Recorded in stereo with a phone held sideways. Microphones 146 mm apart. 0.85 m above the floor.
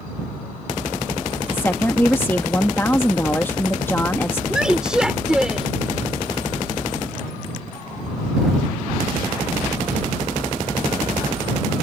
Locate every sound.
1.5 s a woman speaking: 15° left (ahead or behind)
4.5 s a woman speaking: 5° right (ahead or behind)